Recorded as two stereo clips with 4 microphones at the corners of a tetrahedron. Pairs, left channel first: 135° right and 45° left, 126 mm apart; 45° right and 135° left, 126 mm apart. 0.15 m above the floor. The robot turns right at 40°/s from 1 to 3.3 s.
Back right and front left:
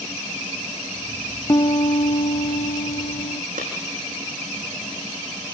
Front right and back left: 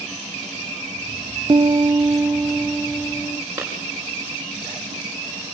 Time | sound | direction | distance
1.5 | a piano | 170° left | 0.7 m
3.6 | a clap | 55° left | 7.5 m